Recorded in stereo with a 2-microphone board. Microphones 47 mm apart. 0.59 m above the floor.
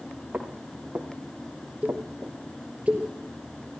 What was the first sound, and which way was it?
Footsteps, 35° right (ahead or behind).